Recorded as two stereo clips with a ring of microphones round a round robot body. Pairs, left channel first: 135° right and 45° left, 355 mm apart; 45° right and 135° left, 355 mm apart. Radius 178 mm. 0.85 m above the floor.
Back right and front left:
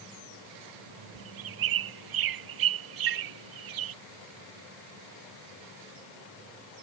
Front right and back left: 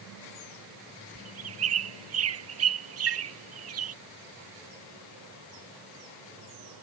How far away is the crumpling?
I don't hear crumpling.